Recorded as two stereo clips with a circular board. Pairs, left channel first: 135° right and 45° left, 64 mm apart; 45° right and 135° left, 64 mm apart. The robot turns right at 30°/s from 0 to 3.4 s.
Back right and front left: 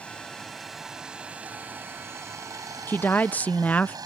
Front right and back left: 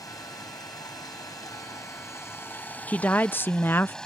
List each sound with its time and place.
0.0 s running water: 65° right; by 4.0 s 35° left
2.9 s a woman speaking: 100° right; by 4.0 s 80° right